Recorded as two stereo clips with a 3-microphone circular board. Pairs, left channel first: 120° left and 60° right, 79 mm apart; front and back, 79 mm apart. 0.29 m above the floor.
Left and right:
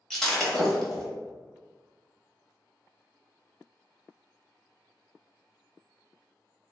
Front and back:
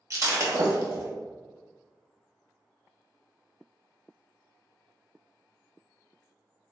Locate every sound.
0.1 s breaking glass: 160° right, 0.7 m